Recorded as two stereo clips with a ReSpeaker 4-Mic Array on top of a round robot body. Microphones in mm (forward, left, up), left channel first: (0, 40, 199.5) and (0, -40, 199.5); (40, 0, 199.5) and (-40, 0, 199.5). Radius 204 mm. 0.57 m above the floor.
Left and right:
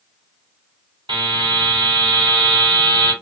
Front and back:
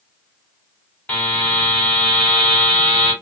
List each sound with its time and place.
1.1 s a buzzer: 75° right, 1.7 m